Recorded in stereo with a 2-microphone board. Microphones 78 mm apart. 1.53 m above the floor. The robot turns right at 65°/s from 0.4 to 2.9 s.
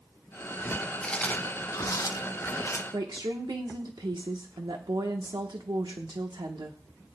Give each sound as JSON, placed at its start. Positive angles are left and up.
{"t": 1.0, "sound": "chewing", "side_deg": 10, "distance_m": 0.8}
{"t": 2.9, "sound": "a woman speaking", "side_deg": -70, "distance_m": 1.1}